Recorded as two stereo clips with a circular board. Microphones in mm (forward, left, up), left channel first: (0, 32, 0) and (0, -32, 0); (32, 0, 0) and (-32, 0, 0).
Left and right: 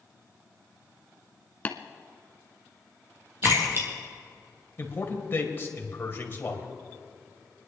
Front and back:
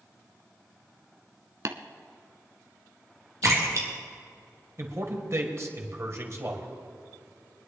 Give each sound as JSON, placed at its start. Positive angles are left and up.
{"t": 1.6, "sound": "tapping", "azimuth_deg": 150, "distance_m": 0.9}
{"t": 3.4, "sound": "a splash", "azimuth_deg": -140, "distance_m": 3.5}
{"t": 4.8, "sound": "a man speaking", "azimuth_deg": 140, "distance_m": 2.0}